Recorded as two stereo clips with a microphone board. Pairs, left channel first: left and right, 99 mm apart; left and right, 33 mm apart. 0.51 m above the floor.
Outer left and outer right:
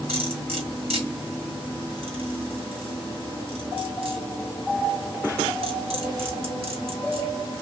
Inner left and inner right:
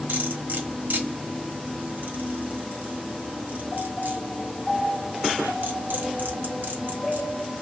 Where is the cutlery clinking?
80° right, 1.6 m.